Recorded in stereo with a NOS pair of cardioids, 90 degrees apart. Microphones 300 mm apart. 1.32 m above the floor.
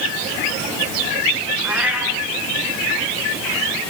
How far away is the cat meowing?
About 5 m.